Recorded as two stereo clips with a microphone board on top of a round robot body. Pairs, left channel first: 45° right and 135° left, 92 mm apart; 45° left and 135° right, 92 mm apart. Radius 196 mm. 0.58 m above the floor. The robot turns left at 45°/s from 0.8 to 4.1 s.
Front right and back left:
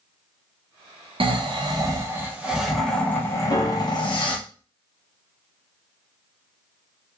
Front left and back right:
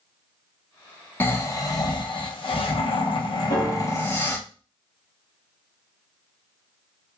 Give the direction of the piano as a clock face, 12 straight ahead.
12 o'clock.